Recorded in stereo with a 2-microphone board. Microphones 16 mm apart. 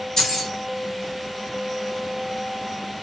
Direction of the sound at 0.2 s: 35° left (ahead or behind).